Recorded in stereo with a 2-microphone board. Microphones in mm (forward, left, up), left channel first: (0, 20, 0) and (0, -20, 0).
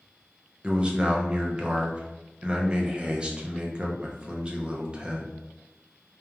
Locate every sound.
0.6 s a man speaking: 25° right (ahead or behind), 0.5 m